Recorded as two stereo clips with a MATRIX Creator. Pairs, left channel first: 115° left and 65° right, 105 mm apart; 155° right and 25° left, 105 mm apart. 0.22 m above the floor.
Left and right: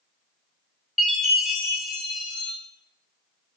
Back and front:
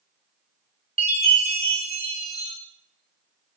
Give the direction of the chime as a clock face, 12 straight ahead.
11 o'clock.